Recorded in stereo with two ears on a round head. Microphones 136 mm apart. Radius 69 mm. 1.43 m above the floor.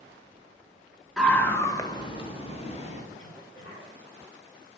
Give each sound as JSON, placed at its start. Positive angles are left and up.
{"t": 1.2, "sound": "a scream", "side_deg": 5, "distance_m": 1.6}
{"t": 3.1, "sound": "a cough", "side_deg": 55, "distance_m": 3.5}